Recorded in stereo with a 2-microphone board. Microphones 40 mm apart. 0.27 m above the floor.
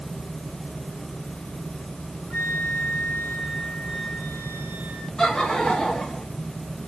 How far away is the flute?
About 3.5 m.